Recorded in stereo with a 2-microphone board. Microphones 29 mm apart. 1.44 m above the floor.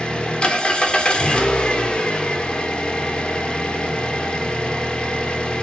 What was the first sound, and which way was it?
An engine running, 30° left (ahead or behind).